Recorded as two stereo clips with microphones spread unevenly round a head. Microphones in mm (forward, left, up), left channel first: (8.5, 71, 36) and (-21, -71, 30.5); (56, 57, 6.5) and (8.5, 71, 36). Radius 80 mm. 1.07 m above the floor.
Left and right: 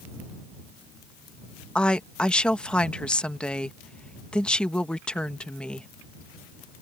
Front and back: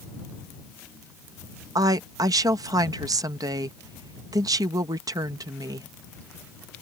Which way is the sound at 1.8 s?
160° left.